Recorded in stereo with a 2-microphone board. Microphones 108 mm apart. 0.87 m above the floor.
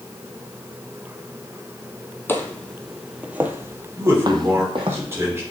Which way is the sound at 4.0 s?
25° right (ahead or behind).